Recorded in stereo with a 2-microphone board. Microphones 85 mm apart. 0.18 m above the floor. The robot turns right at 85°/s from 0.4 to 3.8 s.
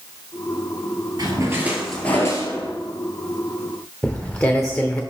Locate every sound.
1.2 s a splash: 60° right, 1.5 m; by 2.7 s 75° left, 1.5 m
4.0 s footsteps: 15° left (ahead or behind), 1.0 m